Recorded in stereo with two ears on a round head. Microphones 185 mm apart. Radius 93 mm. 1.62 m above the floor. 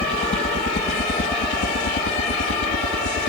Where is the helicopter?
30° left (ahead or behind); by 3.3 s 60° left (ahead or behind).